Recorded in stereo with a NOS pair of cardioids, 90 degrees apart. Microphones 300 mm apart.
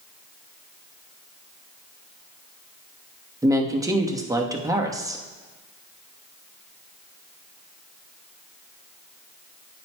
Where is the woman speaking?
10° right, 1.1 m.